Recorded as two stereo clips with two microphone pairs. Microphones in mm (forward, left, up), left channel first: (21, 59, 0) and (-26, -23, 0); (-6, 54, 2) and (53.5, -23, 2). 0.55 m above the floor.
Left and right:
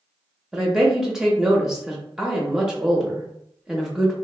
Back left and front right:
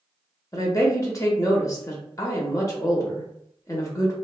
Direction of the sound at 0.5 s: 155° left.